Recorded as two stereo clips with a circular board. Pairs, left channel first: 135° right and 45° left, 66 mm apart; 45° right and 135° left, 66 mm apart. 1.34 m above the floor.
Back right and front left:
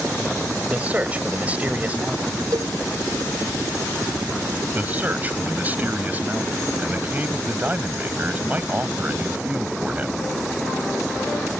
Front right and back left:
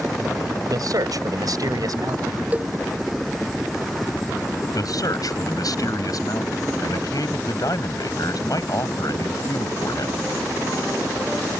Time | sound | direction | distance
0.7 | a man speaking | 110° left | ?
2.5 | a cowbell | 70° left | ?
4.7 | a man speaking | 20° right | ?